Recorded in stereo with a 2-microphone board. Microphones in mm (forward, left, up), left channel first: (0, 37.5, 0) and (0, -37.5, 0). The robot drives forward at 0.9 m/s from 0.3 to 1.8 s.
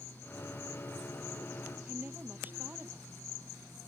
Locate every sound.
1.9 s a woman speaking: 25° right (ahead or behind)